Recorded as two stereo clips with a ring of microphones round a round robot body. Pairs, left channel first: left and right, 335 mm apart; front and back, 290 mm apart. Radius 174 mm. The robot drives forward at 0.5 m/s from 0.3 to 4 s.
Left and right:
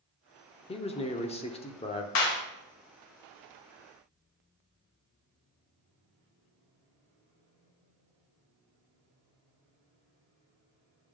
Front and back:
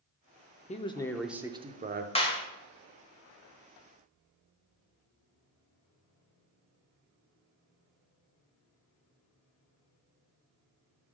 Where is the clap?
70° left, 1.8 m; by 2.4 s 75° left, 1.8 m.